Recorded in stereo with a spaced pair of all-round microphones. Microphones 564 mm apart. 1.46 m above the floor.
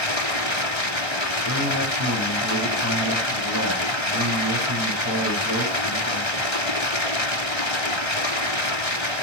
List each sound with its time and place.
0.0 s running water: 55° left (ahead or behind), 2.5 m
1.4 s a man speaking: 30° right (ahead or behind), 7 m